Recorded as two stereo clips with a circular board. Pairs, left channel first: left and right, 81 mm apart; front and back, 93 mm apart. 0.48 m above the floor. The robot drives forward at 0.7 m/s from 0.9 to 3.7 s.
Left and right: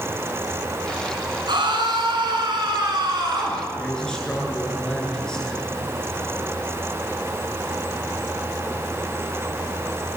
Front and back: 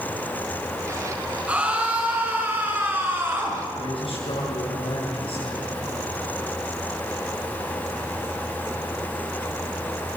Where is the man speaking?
10° left, 8 m.